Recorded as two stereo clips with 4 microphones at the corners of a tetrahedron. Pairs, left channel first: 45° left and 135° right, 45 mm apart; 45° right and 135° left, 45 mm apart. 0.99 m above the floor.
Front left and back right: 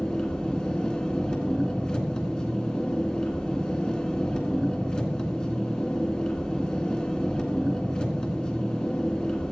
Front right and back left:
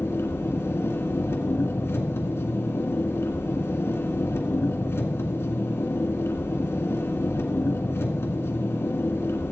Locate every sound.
0.0 s an engine running: 20° right, 1.8 m